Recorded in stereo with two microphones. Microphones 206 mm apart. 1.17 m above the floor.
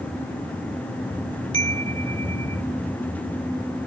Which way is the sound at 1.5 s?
80° left.